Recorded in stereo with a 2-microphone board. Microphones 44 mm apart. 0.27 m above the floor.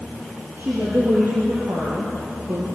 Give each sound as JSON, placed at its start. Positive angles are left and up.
{"t": 0.6, "sound": "a woman speaking", "side_deg": -65, "distance_m": 7.5}